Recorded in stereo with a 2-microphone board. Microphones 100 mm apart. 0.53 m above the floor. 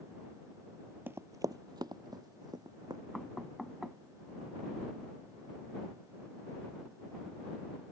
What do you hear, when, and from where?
1.1 s running footsteps: 20° right (ahead or behind); by 3.0 s 40° right (ahead or behind)
3.1 s knocking: 5° right (ahead or behind)